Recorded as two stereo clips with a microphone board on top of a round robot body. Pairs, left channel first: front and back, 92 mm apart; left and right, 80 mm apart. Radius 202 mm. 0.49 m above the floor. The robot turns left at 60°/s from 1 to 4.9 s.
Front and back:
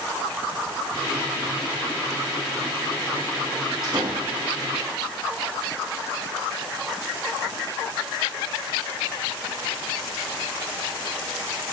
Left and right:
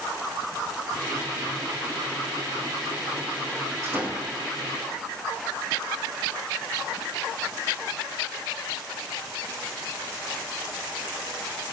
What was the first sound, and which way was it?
A door slam, 140° right.